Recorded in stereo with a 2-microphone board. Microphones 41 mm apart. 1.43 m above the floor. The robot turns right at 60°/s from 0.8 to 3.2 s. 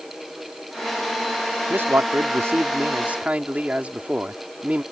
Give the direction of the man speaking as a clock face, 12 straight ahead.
4 o'clock.